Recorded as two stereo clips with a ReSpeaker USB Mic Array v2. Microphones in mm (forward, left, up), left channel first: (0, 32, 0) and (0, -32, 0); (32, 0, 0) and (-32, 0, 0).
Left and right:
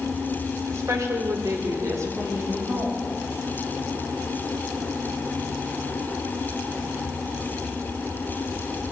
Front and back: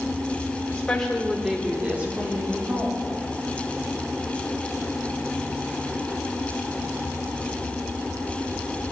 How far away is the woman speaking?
About 1.7 m.